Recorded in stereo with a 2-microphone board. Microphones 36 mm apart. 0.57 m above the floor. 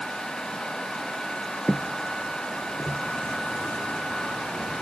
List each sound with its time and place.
1.7 s footsteps: 20° left (ahead or behind), 0.5 m; by 3.0 s 10° right (ahead or behind), 1.2 m